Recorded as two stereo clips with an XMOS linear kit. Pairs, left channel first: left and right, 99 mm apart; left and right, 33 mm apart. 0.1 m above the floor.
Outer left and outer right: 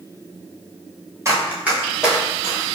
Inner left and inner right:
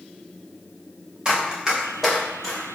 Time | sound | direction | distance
1.2 | running footsteps | 30° right (ahead or behind) | 1.2 m